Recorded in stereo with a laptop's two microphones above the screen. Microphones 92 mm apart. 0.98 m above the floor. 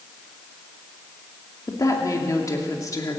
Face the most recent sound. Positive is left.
turn(degrees=40)  # may be behind; listen again after turning